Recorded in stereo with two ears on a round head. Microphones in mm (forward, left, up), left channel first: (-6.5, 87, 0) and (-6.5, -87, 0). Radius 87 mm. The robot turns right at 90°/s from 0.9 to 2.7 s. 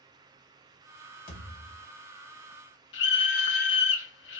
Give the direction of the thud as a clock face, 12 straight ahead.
10 o'clock.